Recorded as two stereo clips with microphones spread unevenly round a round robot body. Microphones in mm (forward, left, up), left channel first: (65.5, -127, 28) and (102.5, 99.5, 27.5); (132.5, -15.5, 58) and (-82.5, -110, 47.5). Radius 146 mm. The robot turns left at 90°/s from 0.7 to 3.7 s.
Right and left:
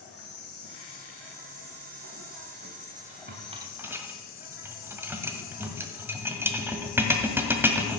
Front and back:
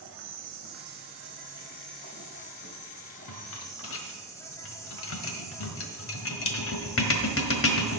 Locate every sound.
0.0 s an insect: 145° right, 2.5 m; by 8.0 s 55° right, 2.5 m
3.3 s a rattle: 40° left, 1.5 m; by 8.0 s straight ahead, 1.5 m